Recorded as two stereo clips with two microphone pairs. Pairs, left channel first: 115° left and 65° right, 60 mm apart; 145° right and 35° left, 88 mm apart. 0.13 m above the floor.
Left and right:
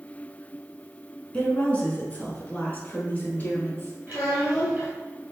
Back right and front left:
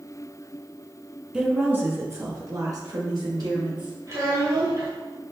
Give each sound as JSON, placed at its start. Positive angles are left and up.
{"t": 1.3, "sound": "a woman speaking", "azimuth_deg": 90, "distance_m": 1.1}
{"t": 4.1, "sound": "a child speaking", "azimuth_deg": 5, "distance_m": 1.6}